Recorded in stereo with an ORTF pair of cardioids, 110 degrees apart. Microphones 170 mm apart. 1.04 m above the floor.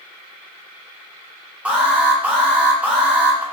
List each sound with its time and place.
1.6 s an alarm: 10° right, 1.2 m